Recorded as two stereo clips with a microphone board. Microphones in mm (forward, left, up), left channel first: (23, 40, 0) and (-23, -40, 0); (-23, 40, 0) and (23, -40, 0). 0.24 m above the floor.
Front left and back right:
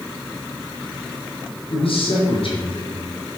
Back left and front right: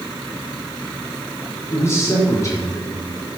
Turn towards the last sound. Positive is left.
turn(degrees=75)